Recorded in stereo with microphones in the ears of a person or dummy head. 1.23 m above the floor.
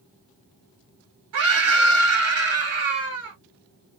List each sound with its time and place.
1.3 s a scream: 65° right (ahead or behind), 1.4 m